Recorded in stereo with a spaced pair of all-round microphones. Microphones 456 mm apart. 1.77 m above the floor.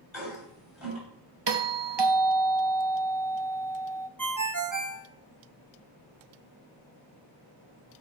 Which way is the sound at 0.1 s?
Centre (ahead or behind).